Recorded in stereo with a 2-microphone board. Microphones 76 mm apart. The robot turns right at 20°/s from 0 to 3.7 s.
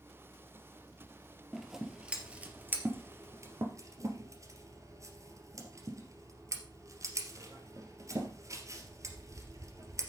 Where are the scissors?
5° right (ahead or behind), 2.5 m; by 10.1 s 45° right (ahead or behind), 2.5 m.